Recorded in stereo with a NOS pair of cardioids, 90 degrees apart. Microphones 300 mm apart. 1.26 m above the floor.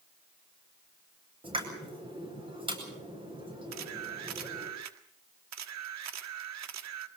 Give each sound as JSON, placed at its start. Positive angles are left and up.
{"t": 1.4, "sound": "a pop", "azimuth_deg": -15, "distance_m": 8.5}
{"t": 3.7, "sound": "a camera shutter", "azimuth_deg": -65, "distance_m": 1.6}